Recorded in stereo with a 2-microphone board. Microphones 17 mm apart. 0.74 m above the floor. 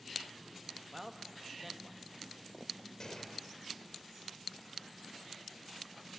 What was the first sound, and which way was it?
A man speaking, 5° right (ahead or behind).